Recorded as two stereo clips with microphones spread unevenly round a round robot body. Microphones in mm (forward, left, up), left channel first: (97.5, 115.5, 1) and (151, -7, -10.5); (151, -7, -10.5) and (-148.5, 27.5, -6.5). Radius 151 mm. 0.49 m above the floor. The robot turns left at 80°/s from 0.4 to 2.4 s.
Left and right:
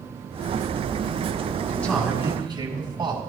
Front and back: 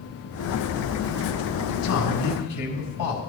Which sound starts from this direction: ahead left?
A man speaking, at 1.7 s.